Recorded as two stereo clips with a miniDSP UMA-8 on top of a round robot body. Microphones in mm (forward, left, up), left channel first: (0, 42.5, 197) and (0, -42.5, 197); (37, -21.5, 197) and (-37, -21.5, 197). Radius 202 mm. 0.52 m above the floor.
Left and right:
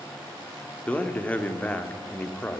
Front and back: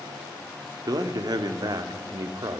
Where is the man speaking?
160° left, 2.0 m.